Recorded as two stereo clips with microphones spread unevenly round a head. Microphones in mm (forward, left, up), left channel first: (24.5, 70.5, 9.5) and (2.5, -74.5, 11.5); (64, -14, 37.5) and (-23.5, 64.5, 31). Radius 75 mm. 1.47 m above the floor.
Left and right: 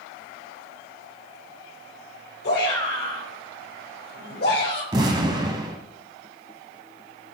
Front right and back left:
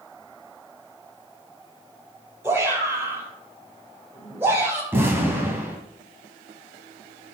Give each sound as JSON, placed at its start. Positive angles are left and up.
{"t": 2.4, "sound": "a shout", "azimuth_deg": 65, "distance_m": 5.0}
{"t": 4.9, "sound": "an explosion", "azimuth_deg": -145, "distance_m": 1.6}